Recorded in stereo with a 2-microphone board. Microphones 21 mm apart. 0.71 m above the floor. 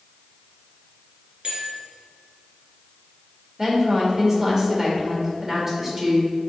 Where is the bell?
60° right (ahead or behind), 2.5 m.